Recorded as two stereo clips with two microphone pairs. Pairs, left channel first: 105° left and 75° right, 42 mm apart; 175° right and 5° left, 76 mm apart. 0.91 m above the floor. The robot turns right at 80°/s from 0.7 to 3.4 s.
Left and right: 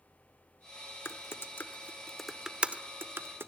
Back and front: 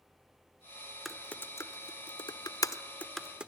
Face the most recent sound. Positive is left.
turn(degrees=-75)